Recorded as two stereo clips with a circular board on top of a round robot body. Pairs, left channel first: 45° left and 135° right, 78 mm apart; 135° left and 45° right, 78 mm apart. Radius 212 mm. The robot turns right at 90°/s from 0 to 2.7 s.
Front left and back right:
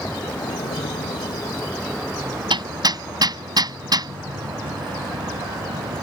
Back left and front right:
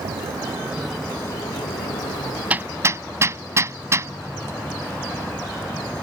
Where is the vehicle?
35° right; by 6.0 s 155° right.